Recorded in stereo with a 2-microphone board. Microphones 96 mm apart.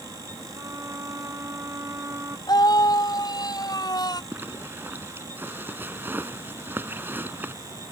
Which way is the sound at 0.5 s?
30° right (ahead or behind).